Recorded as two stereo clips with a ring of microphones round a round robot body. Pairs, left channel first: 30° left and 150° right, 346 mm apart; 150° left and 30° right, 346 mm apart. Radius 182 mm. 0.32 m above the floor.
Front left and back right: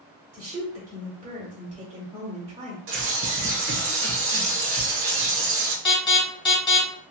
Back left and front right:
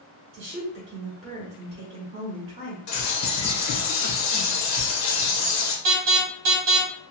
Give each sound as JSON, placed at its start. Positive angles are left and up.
{"t": 0.3, "sound": "a woman speaking", "azimuth_deg": -80, "distance_m": 1.1}
{"t": 2.9, "sound": "a bird", "azimuth_deg": 170, "distance_m": 0.8}
{"t": 5.8, "sound": "an alarm", "azimuth_deg": -45, "distance_m": 1.5}